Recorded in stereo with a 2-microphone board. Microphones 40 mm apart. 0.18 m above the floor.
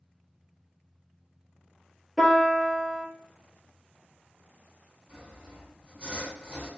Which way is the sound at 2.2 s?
15° right (ahead or behind).